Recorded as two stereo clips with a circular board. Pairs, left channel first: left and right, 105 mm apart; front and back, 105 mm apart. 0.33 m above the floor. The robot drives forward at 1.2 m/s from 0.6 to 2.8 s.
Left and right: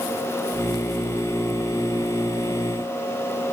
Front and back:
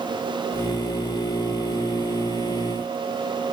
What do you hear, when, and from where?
Only background noise.